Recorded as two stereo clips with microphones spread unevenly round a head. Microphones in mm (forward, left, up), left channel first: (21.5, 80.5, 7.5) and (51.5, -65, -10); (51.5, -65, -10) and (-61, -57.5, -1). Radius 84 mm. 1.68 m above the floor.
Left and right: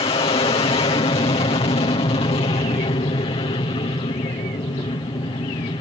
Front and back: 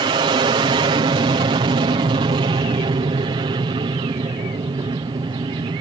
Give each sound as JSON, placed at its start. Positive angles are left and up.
{"t": 0.0, "sound": "an aircraft", "azimuth_deg": 150}